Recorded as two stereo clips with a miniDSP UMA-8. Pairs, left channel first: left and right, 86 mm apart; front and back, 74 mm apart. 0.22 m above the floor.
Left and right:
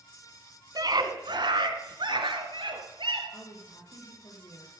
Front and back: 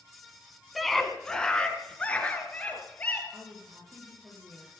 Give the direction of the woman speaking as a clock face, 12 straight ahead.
8 o'clock.